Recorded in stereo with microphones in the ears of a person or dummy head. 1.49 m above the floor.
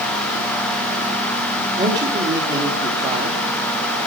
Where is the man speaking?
20° right (ahead or behind), 3.5 m.